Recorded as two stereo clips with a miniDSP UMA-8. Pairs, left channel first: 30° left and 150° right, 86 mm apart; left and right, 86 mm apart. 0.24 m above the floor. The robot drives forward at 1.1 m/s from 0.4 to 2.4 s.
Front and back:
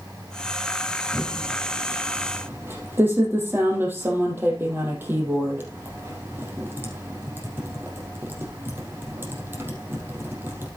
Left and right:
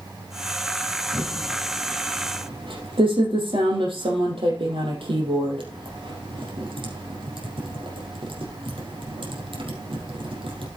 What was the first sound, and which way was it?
Typing on a keyboard, 65° right.